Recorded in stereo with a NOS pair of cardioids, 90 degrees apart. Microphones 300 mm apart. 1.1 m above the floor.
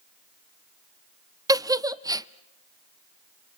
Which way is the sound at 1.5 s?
10° right.